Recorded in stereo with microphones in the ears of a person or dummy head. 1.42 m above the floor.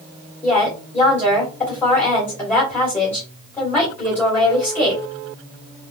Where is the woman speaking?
5° left (ahead or behind), 3 m.